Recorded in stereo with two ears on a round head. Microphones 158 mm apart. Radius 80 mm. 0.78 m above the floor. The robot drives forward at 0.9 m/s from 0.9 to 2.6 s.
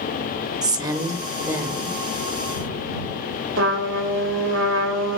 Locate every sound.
0.6 s a woman speaking: 25° right (ahead or behind), 1.6 m; by 2.0 s 15° right (ahead or behind), 2.5 m
3.6 s a trumpet: 80° right, 3 m